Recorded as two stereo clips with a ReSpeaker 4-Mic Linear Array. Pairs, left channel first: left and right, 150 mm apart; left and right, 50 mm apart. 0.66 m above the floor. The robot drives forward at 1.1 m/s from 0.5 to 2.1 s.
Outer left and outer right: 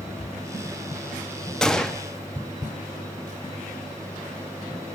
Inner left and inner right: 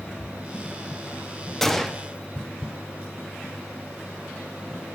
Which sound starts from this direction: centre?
A gunshot, at 1.6 s.